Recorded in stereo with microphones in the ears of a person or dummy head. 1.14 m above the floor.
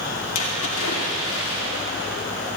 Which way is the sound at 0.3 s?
80° left.